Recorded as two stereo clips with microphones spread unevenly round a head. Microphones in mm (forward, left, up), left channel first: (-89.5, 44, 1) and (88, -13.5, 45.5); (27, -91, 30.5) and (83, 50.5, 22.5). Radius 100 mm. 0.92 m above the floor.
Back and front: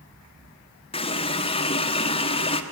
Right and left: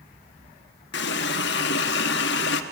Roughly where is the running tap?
Behind right.